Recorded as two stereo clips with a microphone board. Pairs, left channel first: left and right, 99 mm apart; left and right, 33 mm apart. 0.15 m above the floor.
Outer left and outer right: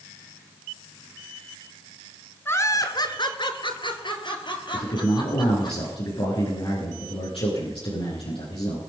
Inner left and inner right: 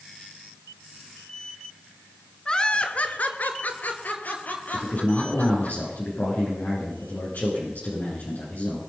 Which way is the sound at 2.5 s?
20° left (ahead or behind).